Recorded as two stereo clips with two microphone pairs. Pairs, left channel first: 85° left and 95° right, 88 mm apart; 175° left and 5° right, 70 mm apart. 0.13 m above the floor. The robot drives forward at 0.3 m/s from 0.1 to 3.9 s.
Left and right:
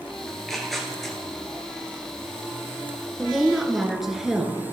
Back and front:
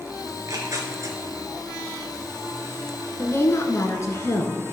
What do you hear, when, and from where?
0.3 s tearing paper: straight ahead, 2.0 m
3.2 s a woman speaking: 175° right, 1.3 m